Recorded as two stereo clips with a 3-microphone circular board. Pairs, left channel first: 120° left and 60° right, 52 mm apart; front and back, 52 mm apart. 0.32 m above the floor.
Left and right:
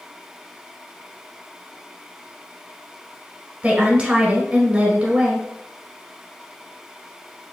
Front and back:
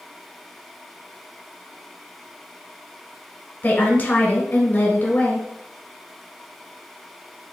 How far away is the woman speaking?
About 1.2 m.